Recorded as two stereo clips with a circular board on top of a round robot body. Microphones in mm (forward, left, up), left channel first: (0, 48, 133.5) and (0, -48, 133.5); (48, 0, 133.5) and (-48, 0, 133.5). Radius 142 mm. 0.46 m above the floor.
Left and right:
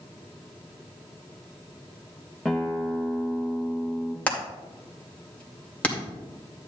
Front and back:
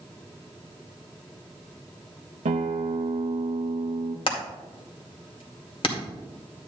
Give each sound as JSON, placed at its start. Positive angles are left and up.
{"t": 2.5, "sound": "a guitar", "azimuth_deg": 175, "distance_m": 0.5}
{"t": 4.3, "sound": "hammering", "azimuth_deg": 15, "distance_m": 2.0}